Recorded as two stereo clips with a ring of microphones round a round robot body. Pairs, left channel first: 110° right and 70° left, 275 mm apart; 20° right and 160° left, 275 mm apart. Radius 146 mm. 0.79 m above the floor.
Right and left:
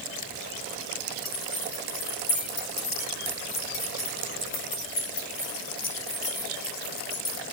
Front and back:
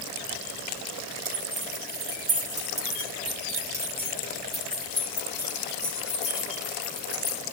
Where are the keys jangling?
155° right, 5.5 m; by 7.4 s 80° right, 6.5 m.